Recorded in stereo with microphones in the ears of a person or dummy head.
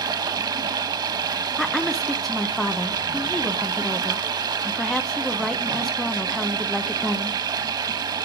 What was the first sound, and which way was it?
Running water, 25° right (ahead or behind).